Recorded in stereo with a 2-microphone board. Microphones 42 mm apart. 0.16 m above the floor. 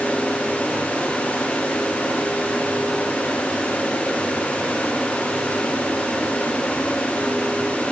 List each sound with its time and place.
Only background noise.